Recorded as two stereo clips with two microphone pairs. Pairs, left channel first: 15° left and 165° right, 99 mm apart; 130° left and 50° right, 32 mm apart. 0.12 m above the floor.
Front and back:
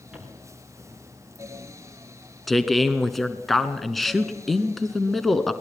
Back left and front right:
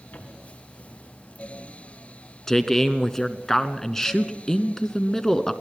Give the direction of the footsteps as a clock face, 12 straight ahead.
8 o'clock.